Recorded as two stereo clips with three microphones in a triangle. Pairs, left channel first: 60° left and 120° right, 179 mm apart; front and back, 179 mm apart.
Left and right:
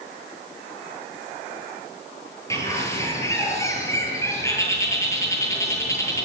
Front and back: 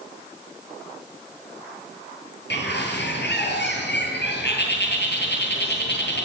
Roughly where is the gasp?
I don't hear a gasp.